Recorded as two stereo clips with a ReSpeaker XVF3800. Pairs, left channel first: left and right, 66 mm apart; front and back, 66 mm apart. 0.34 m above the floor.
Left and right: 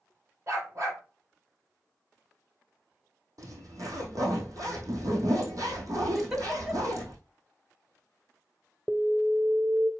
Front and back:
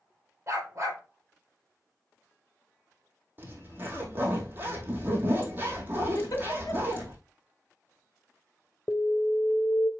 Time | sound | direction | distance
0.5 | a dog barking | 135° right | 4 m
3.4 | a zipper | 120° right | 2.5 m
6.2 | a giggle | 10° right | 1.9 m
8.9 | an alarm | 20° right | 0.7 m